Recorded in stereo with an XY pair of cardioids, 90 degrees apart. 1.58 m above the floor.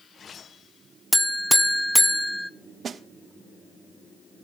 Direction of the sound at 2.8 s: 55° right.